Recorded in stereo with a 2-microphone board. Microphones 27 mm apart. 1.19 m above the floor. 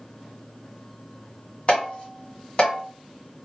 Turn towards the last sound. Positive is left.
turn(degrees=40)  # may be behind; listen again after turning